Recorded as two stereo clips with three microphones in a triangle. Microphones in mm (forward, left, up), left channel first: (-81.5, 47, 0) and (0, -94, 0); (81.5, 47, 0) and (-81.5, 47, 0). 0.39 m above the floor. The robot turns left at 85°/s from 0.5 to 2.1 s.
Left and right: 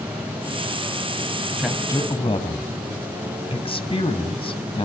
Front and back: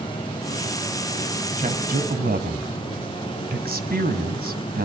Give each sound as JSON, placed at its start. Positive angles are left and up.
{"t": 1.6, "sound": "a man speaking", "azimuth_deg": -140, "distance_m": 2.5}